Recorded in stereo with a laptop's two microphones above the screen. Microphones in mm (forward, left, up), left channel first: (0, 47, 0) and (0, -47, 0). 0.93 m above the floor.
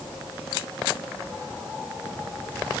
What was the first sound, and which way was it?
Only background noise.